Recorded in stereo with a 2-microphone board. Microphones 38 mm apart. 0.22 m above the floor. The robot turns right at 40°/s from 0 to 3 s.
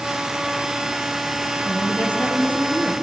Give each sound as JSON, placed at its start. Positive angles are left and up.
{"t": 1.6, "sound": "a woman speaking", "azimuth_deg": 80, "distance_m": 2.5}